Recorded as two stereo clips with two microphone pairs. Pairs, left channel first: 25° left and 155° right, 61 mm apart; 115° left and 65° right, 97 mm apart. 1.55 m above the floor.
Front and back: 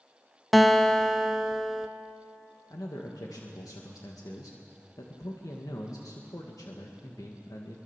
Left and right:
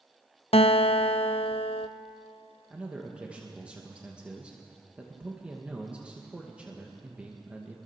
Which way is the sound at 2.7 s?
15° left.